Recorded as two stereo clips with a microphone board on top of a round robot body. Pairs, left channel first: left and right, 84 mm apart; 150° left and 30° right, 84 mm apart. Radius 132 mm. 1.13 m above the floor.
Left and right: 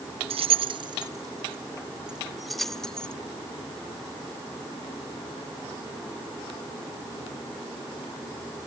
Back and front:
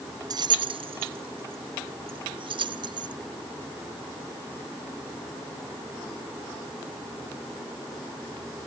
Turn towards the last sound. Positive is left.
turn(degrees=10)